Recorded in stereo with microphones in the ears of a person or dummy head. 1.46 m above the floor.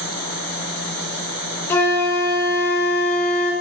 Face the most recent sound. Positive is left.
turn(degrees=10)  # may be behind; listen again after turning